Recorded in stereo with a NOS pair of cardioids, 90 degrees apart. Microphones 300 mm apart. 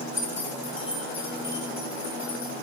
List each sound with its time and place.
0.1 s keys jangling: 40° left, 2 m; by 2.5 s 45° left, 3.5 m